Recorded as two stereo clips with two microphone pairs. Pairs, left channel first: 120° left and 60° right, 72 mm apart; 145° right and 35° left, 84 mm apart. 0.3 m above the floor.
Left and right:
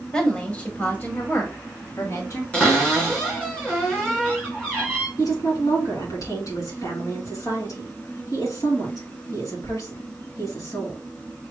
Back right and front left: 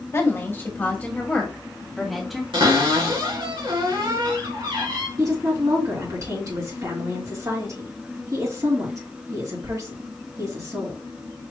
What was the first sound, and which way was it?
A woman speaking, 170° right.